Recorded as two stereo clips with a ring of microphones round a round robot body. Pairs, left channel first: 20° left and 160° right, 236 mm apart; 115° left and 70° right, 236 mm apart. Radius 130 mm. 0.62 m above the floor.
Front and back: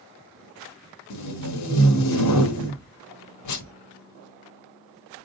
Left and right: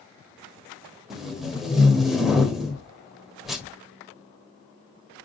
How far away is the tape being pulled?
About 1.2 m.